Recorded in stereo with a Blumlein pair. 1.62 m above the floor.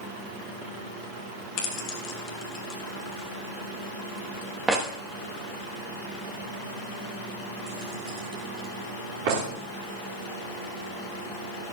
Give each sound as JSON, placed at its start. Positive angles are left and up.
{"t": 1.6, "sound": "keys jangling", "azimuth_deg": 35, "distance_m": 1.9}